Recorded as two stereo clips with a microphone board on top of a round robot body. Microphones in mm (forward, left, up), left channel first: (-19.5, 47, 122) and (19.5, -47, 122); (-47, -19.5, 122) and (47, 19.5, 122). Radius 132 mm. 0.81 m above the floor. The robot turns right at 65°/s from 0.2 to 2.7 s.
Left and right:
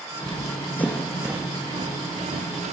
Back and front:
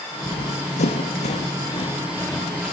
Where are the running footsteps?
165° left, 2 m; by 2.7 s 65° right, 5.5 m.